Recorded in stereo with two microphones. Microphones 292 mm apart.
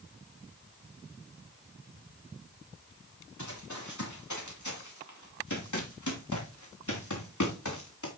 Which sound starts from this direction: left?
Running footsteps, at 3.4 s.